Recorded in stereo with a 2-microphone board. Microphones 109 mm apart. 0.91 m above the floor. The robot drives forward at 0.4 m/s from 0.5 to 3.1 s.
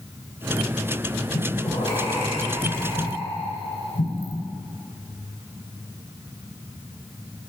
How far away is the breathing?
About 3.5 m.